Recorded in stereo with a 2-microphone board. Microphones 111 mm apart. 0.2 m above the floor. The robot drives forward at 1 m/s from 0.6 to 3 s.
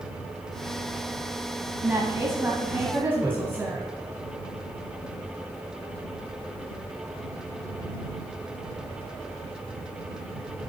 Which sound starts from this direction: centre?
A woman speaking, at 1.8 s.